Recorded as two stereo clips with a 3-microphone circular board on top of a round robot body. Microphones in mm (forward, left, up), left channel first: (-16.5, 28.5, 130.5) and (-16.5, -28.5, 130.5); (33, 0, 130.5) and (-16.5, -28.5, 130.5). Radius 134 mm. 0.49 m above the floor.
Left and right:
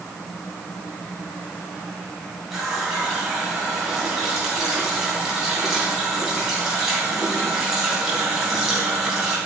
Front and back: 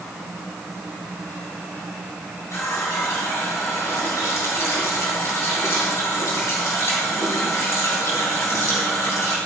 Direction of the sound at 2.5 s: 5° right.